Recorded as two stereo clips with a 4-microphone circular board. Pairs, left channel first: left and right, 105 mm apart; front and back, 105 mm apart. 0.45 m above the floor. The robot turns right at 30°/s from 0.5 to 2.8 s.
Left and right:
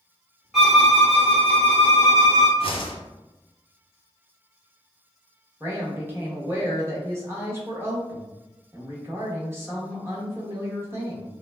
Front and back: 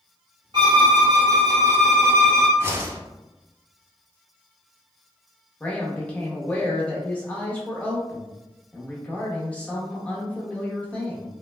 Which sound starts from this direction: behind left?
A whoosh, at 2.6 s.